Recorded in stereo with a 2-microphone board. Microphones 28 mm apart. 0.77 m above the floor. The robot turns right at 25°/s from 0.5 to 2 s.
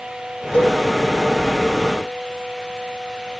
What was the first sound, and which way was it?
A cowbell, 55° left (ahead or behind).